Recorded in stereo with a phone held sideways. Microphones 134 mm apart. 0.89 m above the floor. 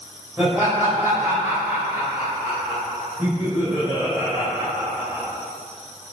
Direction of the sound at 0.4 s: 15° right (ahead or behind).